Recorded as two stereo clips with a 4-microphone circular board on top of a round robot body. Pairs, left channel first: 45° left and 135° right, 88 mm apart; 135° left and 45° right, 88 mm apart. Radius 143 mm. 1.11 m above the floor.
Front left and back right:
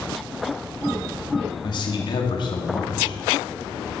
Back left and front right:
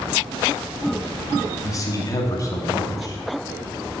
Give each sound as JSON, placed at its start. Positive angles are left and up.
{"t": 1.6, "sound": "a man speaking", "azimuth_deg": 80, "distance_m": 2.0}